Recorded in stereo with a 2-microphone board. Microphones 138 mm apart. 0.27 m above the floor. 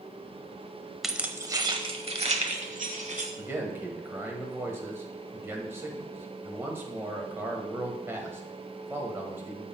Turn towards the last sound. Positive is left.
turn(degrees=-15)  # may be behind; listen again after turning